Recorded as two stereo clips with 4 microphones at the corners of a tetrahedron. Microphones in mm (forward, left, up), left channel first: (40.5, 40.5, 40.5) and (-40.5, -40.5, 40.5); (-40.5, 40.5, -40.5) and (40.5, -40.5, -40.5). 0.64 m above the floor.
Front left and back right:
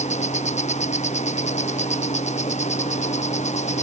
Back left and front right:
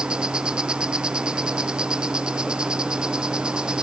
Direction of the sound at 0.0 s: 35° left.